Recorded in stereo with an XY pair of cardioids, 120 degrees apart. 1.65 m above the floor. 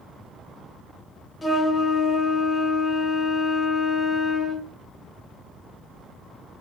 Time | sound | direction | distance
1.4 | a flute | 20° left | 0.6 m